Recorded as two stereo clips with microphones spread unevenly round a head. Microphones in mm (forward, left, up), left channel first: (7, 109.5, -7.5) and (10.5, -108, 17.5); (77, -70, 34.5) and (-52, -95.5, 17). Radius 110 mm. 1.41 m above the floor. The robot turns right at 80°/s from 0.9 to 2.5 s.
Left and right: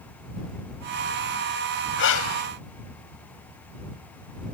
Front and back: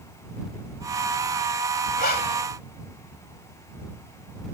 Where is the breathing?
50° left; by 2.5 s 90° left.